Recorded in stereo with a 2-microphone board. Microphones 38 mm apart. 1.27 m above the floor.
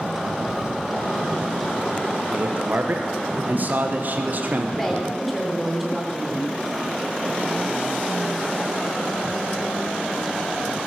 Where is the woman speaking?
5° left (ahead or behind), 3.5 m.